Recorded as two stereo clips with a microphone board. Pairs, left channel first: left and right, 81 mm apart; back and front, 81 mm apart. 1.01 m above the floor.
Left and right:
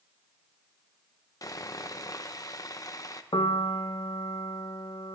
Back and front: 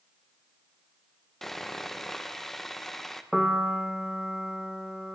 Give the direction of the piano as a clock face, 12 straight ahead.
9 o'clock.